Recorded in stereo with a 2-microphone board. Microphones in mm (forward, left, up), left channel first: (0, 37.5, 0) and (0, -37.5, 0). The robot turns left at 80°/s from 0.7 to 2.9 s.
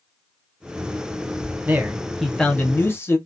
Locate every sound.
1.7 s a man speaking: 135° right, 0.8 m; by 3.2 s 125° left, 0.8 m